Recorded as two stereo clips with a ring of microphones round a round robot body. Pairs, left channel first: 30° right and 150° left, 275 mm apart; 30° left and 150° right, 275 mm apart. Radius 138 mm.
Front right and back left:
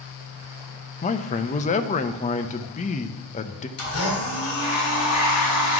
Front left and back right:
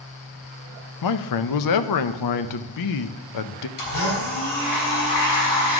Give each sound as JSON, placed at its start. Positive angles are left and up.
{"t": 1.0, "sound": "a man speaking", "azimuth_deg": 35, "distance_m": 0.6}
{"t": 3.8, "sound": "a blender", "azimuth_deg": 10, "distance_m": 3.5}